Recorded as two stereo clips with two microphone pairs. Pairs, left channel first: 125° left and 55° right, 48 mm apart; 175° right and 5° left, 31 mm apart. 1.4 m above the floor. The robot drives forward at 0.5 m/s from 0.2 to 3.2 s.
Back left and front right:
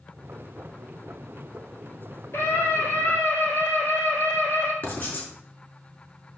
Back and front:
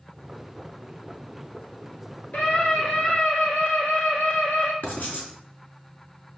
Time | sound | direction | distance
2.3 | a scream | 155° left | 4 m
4.8 | writing | straight behind | 4 m